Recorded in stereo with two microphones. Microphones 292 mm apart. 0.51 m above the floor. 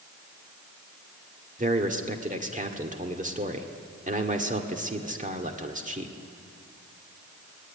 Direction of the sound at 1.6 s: 25° right (ahead or behind).